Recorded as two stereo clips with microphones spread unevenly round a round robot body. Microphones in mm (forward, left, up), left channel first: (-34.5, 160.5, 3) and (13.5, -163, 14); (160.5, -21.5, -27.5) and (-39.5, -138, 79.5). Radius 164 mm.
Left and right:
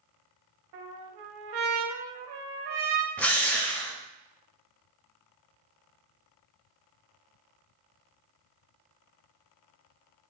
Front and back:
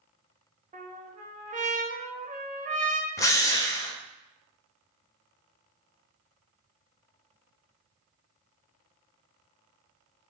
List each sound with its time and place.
0.7 s a trumpet: 75° right, 0.7 m
3.2 s a drill: 15° left, 0.6 m